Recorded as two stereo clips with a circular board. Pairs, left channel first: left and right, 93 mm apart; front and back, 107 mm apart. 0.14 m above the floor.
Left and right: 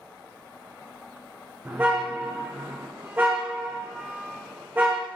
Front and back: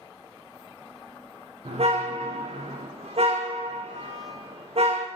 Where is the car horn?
160° right, 3.5 m.